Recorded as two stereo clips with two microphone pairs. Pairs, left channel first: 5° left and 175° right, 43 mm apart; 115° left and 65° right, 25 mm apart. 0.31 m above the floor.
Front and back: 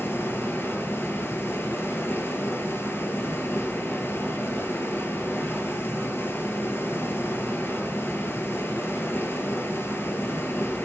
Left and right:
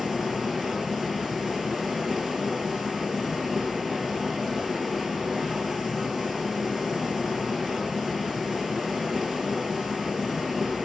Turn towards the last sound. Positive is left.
turn(degrees=25)